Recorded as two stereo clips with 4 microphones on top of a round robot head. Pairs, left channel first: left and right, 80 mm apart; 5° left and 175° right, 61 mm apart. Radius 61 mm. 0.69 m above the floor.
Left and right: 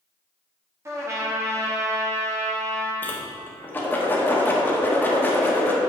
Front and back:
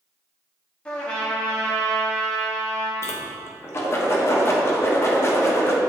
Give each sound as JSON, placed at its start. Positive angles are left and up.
{"t": 0.8, "sound": "a trumpet", "azimuth_deg": -60, "distance_m": 1.4}
{"t": 3.0, "sound": "a whoosh", "azimuth_deg": 30, "distance_m": 1.2}